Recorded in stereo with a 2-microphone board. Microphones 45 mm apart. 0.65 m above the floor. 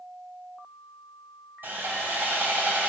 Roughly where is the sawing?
Right.